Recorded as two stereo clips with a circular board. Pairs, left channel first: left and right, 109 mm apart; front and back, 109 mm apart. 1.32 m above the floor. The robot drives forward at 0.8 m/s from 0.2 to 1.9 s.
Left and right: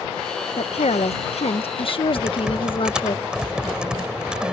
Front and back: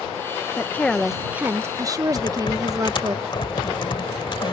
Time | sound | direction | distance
0.6 | a woman speaking | 70° left | ?
2.1 | typing on a keyboard | 10° right | ?